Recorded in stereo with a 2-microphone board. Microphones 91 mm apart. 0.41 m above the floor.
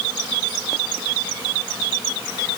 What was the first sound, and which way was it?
Only background noise.